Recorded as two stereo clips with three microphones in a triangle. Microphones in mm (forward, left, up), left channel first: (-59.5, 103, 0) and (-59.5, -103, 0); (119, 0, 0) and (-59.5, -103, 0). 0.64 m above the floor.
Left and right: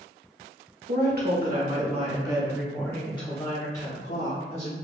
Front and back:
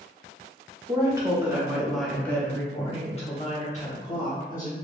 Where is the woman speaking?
80° right, 1.3 m; by 4.7 s 70° left, 1.5 m.